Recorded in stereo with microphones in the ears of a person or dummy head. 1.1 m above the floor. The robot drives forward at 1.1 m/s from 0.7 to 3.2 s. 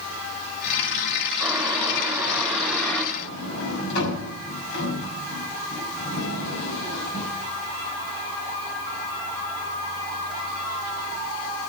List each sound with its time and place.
1.4 s boiling: centre (ahead or behind), 4.5 m; by 3.0 s 5° left (ahead or behind), 3 m
3.1 s a sliding door: 65° left (ahead or behind), 5.5 m